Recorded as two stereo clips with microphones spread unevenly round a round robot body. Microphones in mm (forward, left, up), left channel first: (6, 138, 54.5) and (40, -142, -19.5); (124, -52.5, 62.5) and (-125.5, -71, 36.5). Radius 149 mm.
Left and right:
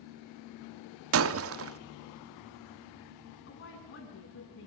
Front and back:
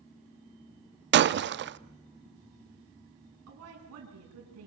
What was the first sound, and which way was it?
Breaking glass, 130° right.